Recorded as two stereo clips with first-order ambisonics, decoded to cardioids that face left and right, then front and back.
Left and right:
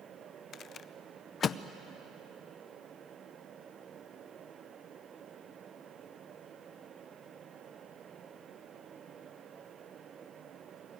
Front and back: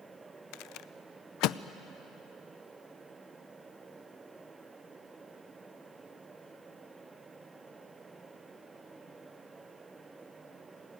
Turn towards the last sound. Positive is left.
turn(degrees=30)